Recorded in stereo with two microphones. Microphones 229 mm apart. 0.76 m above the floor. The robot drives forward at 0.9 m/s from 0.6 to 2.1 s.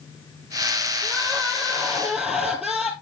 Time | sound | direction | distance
1.0 | crying | 5° right (ahead or behind) | 5 m